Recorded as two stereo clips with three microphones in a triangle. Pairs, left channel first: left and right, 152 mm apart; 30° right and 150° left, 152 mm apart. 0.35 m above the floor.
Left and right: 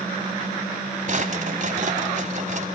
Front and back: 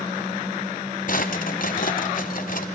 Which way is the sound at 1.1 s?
55° right.